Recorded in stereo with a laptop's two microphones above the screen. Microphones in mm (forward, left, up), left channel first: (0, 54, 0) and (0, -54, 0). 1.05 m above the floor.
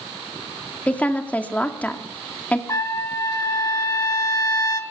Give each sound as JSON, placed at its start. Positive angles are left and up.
{"t": 0.9, "sound": "a woman speaking", "side_deg": 15, "distance_m": 2.0}
{"t": 2.7, "sound": "a trumpet", "side_deg": 30, "distance_m": 1.3}